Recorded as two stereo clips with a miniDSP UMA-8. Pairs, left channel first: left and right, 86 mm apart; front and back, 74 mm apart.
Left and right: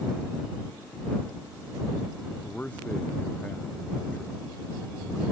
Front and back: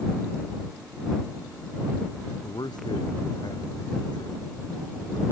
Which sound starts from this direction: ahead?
A man speaking, at 2.4 s.